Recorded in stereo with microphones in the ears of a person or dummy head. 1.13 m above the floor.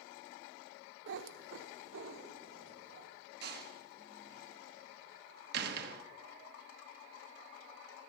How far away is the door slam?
About 1.2 m.